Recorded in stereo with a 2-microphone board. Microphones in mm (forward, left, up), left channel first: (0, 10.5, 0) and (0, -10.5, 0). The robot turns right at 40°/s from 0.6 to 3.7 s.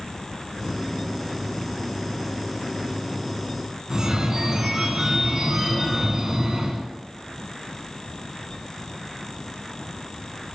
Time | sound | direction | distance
3.9 | a phone ringing | 25° right (ahead or behind) | 0.9 m